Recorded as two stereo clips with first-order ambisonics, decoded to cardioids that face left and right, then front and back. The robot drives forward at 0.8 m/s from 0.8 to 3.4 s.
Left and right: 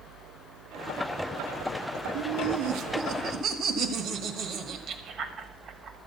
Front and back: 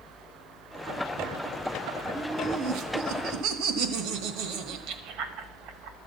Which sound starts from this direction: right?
Laughter, at 2.1 s.